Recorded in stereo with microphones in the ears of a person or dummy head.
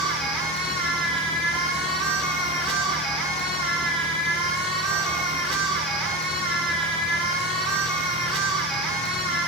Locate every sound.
0.0 s a machine running: 5° right (ahead or behind), 3.5 m